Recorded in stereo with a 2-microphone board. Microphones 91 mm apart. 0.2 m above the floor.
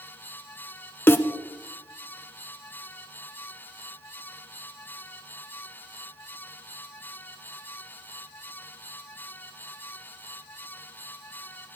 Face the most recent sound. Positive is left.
turn(degrees=25)  # may be behind; listen again after turning